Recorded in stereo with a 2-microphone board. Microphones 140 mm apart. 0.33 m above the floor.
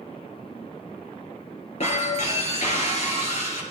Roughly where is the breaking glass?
Left.